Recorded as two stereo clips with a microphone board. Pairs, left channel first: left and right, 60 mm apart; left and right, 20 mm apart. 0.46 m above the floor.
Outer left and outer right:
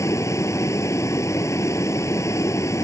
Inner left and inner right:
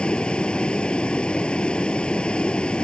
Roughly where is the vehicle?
Left.